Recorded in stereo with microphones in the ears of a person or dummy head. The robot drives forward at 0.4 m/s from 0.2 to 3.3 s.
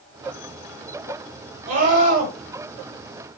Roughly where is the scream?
Right.